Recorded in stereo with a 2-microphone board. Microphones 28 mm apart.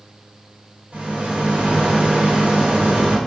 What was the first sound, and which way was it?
A rattle, 60° right (ahead or behind).